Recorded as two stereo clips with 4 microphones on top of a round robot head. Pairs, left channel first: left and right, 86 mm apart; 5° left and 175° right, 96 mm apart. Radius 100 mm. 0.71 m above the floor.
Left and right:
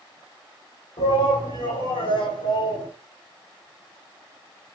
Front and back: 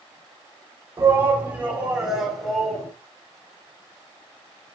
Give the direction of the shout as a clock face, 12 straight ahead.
8 o'clock.